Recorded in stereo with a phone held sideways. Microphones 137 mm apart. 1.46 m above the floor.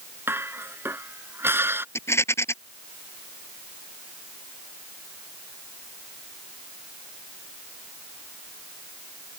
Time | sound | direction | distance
0.3 | dishes clattering | 15° right (ahead or behind) | ?
1.9 | a rattle | 20° left (ahead or behind) | ?